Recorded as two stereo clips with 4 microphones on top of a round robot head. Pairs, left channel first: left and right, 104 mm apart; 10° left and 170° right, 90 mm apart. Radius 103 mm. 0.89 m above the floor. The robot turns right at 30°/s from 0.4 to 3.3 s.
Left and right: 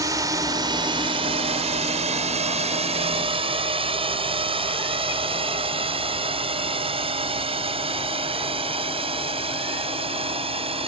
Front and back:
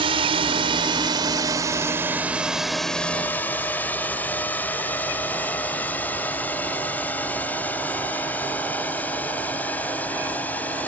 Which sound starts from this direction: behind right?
A drone, at 0.0 s.